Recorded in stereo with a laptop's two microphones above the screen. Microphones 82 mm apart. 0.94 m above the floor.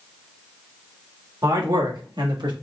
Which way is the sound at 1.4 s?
60° right (ahead or behind).